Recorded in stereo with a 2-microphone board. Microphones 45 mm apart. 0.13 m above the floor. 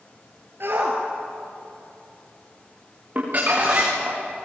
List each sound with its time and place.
0.6 s a shout: 60° right (ahead or behind), 3 m; by 3.9 s 55° right (ahead or behind), 5 m
3.1 s crumpling: 40° right (ahead or behind), 7 m